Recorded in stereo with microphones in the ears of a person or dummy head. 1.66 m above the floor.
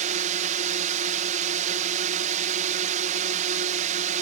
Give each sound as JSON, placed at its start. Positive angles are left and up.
{"t": 0.0, "sound": "a drone", "side_deg": -45}